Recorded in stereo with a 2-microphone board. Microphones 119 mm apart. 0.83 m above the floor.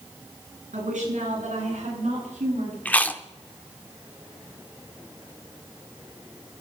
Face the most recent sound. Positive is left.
turn(degrees=15)  # may be behind; listen again after turning